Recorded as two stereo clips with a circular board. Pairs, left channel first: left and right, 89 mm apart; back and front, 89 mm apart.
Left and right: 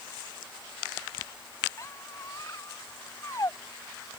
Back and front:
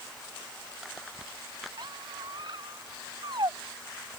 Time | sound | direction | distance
1.8 | a squeak | 35° left | ?